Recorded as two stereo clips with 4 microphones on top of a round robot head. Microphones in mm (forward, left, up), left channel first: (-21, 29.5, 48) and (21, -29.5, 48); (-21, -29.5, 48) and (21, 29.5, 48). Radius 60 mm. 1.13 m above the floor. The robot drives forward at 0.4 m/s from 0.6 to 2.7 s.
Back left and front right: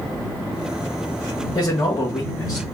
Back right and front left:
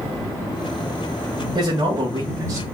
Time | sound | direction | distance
1.6 | a man speaking | 80° left | 1.5 m